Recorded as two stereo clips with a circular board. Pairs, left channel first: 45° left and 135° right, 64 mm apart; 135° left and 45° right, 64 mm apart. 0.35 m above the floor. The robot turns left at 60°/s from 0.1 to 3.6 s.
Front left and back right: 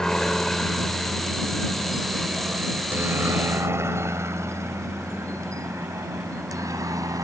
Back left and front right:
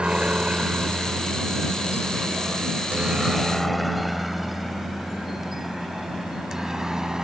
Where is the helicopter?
10° right; by 7.2 s 125° right.